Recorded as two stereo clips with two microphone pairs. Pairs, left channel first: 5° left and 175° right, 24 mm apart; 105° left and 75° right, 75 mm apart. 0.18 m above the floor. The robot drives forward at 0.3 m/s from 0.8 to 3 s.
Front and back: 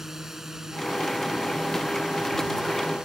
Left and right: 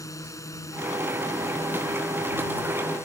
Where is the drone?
120° left; by 3.1 s 140° left.